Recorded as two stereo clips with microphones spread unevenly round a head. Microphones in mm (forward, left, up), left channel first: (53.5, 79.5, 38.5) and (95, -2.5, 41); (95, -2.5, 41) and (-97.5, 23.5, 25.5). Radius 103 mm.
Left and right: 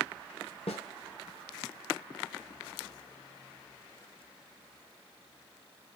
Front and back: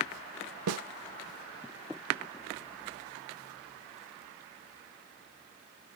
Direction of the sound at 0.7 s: 175° left.